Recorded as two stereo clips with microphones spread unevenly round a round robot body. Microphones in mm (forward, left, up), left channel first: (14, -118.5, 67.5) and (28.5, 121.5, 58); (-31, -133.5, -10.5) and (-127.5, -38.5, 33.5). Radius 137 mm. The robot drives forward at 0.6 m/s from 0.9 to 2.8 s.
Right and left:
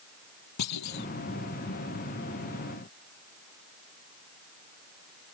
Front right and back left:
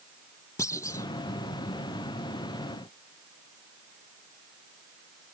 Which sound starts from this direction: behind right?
A clunk, at 0.6 s.